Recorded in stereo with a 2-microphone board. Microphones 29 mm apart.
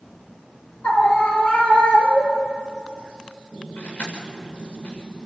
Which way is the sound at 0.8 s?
50° left (ahead or behind).